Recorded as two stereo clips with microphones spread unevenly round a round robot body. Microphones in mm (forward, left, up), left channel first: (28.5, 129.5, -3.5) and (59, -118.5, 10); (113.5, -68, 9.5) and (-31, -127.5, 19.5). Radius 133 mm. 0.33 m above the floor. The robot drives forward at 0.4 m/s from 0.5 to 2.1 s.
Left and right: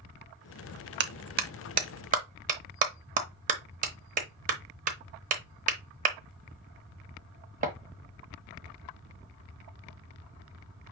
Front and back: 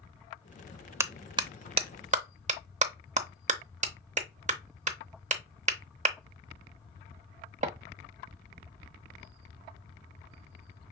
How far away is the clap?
About 0.7 m.